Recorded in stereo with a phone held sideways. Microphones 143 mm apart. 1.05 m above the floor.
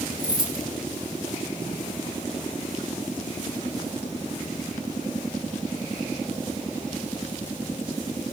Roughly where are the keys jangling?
Left.